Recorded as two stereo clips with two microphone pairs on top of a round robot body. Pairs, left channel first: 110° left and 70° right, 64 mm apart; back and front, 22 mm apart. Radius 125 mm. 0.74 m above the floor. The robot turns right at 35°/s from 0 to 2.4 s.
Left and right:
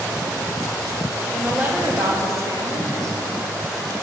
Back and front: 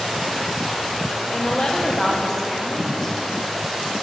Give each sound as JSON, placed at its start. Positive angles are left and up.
{"t": 1.3, "sound": "a woman speaking", "azimuth_deg": -145, "distance_m": 1.2}